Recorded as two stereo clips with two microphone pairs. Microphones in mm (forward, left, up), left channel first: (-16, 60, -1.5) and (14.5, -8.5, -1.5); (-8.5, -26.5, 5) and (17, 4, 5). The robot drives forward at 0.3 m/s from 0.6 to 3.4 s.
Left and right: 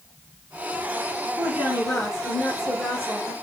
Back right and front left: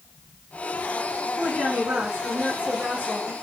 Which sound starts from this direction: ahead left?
A woman speaking, at 1.4 s.